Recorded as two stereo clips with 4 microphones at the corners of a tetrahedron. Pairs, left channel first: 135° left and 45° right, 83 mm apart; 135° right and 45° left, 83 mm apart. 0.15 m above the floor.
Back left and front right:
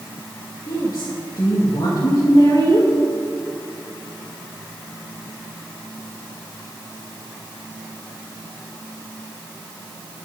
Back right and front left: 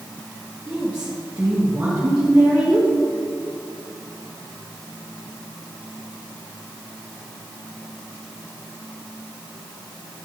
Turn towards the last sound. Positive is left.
turn(degrees=115)